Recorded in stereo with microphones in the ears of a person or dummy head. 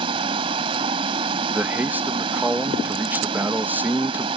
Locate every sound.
0.0 s running water: 35° right (ahead or behind)
1.5 s a man speaking: centre (ahead or behind)